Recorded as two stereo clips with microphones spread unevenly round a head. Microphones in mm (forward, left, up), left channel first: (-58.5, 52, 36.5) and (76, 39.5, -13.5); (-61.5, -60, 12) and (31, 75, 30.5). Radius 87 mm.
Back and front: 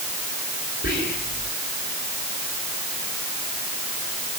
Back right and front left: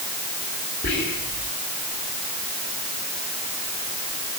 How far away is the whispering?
About 6 m.